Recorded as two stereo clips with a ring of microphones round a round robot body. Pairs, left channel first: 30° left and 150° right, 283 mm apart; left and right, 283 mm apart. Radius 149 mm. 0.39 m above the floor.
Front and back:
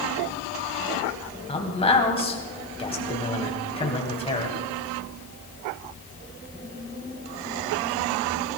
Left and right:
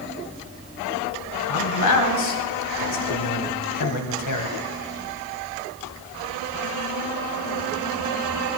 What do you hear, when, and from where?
1.5 s a man speaking: 100° left, 2.5 m